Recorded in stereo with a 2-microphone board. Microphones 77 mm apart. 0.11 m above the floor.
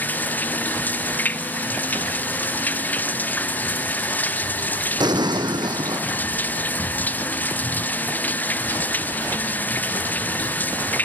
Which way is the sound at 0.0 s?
25° left (ahead or behind).